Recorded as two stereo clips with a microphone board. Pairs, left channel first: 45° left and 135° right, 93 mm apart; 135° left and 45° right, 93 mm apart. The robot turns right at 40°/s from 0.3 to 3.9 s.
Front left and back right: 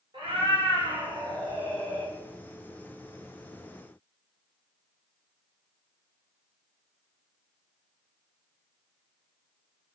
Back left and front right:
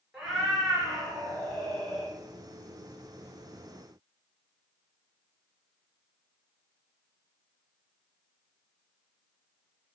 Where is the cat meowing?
135° right, 1.5 m; by 2.1 s 60° right, 1.5 m.